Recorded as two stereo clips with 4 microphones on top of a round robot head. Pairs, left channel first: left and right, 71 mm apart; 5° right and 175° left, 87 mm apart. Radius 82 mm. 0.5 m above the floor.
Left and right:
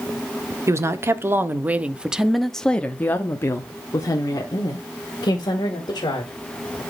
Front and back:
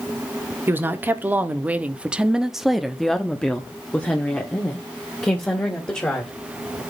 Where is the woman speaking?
125° right, 1.2 m; by 6.3 s 65° left, 2 m.